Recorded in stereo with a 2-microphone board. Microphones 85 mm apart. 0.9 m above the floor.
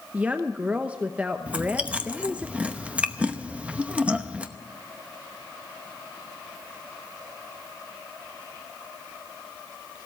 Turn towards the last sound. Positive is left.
turn(degrees=-15)  # may be behind; listen again after turning